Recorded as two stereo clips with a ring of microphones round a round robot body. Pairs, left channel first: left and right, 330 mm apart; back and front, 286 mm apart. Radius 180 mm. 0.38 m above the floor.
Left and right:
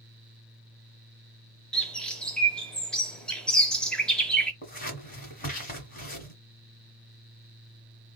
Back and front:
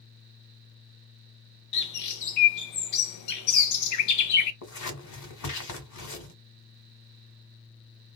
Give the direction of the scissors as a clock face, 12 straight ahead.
7 o'clock.